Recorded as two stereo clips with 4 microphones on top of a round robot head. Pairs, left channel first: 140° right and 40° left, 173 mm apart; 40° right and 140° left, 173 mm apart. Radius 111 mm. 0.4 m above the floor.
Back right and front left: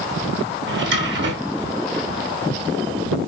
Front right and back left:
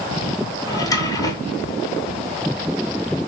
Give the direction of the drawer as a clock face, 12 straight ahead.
11 o'clock.